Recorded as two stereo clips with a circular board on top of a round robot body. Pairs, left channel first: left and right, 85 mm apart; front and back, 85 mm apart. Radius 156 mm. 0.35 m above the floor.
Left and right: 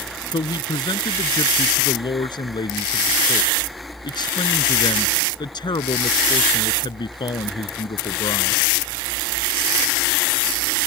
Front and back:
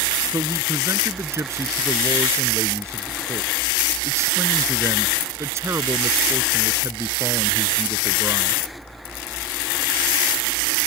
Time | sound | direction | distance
0.3 | a man speaking | 125° left | ?